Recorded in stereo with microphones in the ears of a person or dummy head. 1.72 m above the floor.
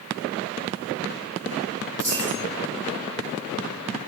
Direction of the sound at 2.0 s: Centre (ahead or behind).